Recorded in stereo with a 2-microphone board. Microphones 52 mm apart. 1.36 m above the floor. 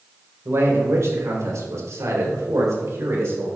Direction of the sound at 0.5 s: 55° right (ahead or behind).